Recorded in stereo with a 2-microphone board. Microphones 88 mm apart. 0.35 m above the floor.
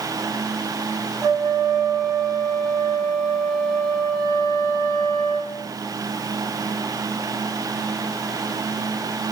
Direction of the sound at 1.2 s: 5° right (ahead or behind).